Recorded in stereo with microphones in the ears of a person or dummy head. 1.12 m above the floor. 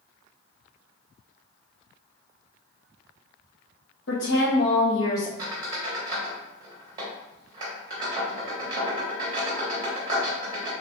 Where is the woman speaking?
70° left (ahead or behind), 1.0 m; by 5.3 s 10° left (ahead or behind), 0.7 m.